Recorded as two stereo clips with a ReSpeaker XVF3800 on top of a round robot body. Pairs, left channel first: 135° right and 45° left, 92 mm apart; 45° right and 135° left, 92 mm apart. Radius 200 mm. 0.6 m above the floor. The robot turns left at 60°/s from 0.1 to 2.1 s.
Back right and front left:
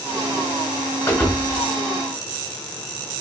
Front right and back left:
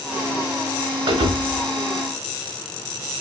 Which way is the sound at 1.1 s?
165° left.